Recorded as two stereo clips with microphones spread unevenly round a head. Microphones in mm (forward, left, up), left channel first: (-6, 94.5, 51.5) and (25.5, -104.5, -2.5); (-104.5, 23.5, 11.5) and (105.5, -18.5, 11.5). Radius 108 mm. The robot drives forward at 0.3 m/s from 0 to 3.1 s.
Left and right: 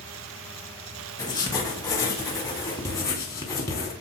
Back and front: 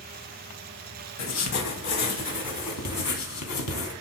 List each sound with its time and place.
1.2 s writing: 165° left, 2 m; by 3.9 s 170° left, 2.5 m